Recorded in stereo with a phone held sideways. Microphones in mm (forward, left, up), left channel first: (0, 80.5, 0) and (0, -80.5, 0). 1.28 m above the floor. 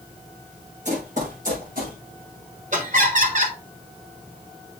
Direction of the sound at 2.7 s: 50° right (ahead or behind).